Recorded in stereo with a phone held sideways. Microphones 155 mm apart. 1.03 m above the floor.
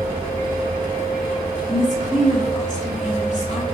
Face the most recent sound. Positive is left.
turn(degrees=50)  # may be behind; listen again after turning